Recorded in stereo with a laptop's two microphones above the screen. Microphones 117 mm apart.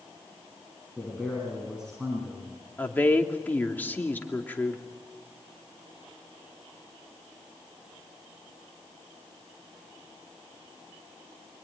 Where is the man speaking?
5° right (ahead or behind), 9 m.